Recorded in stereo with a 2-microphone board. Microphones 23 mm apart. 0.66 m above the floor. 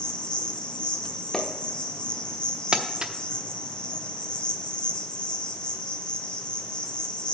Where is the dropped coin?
No dropped coin in this recording.